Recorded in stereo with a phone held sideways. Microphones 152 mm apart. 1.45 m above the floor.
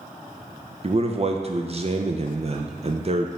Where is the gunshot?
I don't hear a gunshot.